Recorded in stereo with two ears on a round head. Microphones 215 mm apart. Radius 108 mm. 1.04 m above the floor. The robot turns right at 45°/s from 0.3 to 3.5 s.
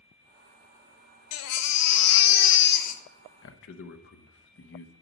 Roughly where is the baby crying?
Left.